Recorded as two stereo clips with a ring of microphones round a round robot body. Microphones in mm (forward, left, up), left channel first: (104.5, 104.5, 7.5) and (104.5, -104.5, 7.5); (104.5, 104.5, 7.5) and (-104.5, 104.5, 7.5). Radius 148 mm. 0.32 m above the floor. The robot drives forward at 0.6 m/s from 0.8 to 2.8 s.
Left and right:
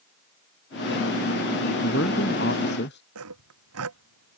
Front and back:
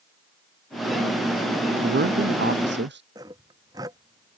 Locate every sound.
1.8 s a man speaking: 145° left
3.1 s sawing: 100° right